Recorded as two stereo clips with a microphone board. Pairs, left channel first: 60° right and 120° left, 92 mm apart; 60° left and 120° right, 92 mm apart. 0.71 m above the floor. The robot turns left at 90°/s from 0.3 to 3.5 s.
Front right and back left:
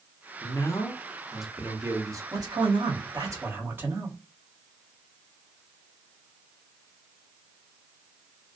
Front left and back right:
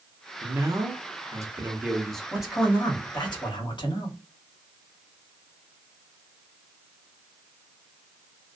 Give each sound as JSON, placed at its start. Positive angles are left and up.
{"t": 0.4, "sound": "a man speaking", "azimuth_deg": -60, "distance_m": 0.7}
{"t": 2.3, "sound": "a man speaking", "azimuth_deg": 165, "distance_m": 1.0}